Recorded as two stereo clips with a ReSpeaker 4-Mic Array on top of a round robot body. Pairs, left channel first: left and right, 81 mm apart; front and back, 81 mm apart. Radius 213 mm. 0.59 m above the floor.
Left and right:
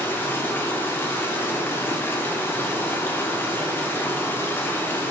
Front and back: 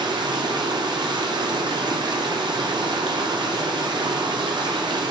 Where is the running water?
155° left, 1.1 m.